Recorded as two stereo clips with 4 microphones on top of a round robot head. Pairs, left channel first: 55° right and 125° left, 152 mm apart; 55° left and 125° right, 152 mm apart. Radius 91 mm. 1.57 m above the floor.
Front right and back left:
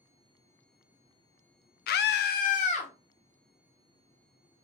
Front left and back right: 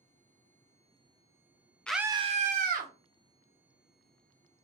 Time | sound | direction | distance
1.9 | a scream | 30° right | 0.6 m